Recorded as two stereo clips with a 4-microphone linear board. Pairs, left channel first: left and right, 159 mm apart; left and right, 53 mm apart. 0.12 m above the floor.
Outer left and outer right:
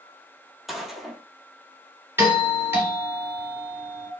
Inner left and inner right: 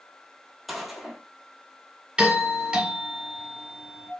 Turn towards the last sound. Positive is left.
turn(degrees=-15)  # may be behind; listen again after turning